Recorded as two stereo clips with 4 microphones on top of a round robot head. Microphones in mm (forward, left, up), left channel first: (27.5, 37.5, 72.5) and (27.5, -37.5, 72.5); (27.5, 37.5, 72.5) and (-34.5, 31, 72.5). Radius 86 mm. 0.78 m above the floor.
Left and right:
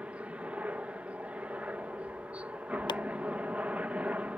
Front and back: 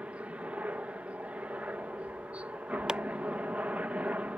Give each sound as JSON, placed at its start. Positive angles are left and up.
{"t": 0.0, "sound": "a helicopter", "azimuth_deg": -140}
{"t": 2.9, "sound": "chopping", "azimuth_deg": 105}